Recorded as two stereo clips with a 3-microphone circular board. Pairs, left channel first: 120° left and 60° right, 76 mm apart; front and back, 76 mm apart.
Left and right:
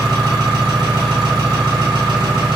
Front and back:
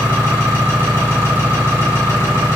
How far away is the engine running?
About 1.7 m.